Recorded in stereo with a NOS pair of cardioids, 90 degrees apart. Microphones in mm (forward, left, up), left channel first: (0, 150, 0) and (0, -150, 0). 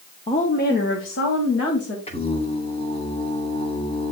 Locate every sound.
0.3 s a woman speaking: 20° left, 1.2 m; by 2.0 s 50° left, 3 m
2.1 s singing: 20° left, 2.5 m